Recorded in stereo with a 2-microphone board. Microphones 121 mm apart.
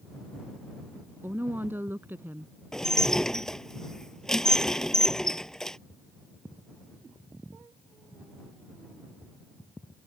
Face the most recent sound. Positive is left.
turn(degrees=5)  # may be behind; listen again after turning